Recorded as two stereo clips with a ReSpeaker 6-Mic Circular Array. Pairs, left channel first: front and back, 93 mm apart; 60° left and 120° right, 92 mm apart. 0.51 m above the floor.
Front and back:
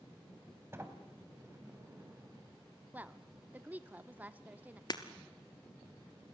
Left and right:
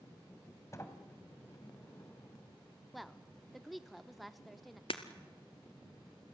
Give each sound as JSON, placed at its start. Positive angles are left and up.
{"t": 0.7, "sound": "a sliding door", "azimuth_deg": 115, "distance_m": 2.5}
{"t": 2.9, "sound": "a woman speaking", "azimuth_deg": 150, "distance_m": 0.8}
{"t": 4.9, "sound": "breaking glass", "azimuth_deg": 40, "distance_m": 1.6}